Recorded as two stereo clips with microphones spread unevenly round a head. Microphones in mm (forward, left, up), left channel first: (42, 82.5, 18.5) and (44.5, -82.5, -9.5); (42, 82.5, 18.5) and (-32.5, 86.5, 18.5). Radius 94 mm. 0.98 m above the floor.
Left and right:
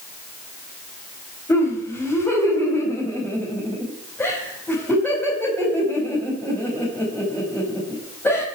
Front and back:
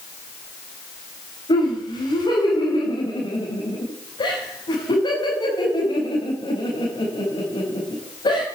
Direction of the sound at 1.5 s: 10° left.